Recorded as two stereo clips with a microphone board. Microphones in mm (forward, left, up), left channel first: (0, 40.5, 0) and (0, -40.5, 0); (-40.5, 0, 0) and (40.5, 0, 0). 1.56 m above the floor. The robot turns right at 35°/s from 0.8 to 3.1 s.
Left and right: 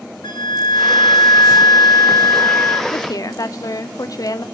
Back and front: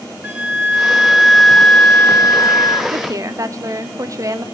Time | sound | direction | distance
0.2 | a flute | 70° left | 1.3 m
2.9 | a woman speaking | 40° left | 0.7 m